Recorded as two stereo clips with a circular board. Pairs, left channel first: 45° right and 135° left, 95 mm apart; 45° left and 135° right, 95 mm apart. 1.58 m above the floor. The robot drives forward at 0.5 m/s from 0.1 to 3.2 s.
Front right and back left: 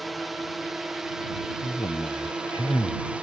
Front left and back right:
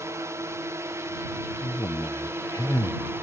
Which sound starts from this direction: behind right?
A drone, at 0.0 s.